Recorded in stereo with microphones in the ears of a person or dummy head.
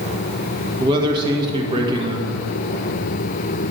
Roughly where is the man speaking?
Right.